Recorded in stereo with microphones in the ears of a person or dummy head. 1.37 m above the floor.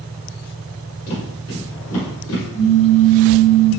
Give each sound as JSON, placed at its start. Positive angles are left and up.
{"t": 1.1, "sound": "footsteps", "side_deg": 40, "distance_m": 2.0}
{"t": 2.5, "sound": "a pop", "side_deg": 45, "distance_m": 1.7}